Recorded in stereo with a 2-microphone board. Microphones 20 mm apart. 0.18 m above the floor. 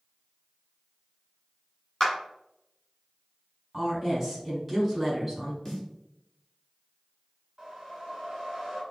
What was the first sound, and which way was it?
A clap, 20° left (ahead or behind).